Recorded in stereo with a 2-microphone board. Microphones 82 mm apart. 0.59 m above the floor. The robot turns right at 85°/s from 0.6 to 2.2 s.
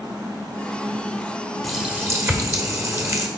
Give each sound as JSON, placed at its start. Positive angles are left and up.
{"t": 1.6, "sound": "a running tap", "azimuth_deg": 175, "distance_m": 1.2}